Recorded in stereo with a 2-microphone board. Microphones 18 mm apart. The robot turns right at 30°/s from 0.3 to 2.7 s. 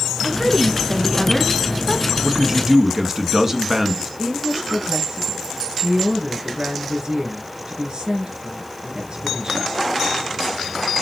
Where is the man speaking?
25° right (ahead or behind), 1.3 m.